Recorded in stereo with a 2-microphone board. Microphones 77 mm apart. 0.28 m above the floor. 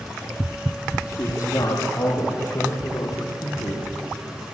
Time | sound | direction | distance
1.1 | a man speaking | 50° left (ahead or behind) | 8 m